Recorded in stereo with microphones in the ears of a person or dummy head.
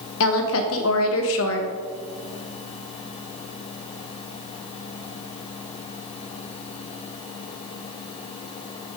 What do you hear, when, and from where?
0.2 s a woman speaking: 75° left (ahead or behind), 1.3 m